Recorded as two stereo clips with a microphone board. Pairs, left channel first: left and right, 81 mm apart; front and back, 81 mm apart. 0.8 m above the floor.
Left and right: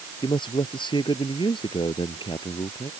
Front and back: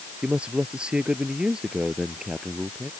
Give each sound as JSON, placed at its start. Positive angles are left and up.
{"t": 0.2, "sound": "a man speaking", "azimuth_deg": 105}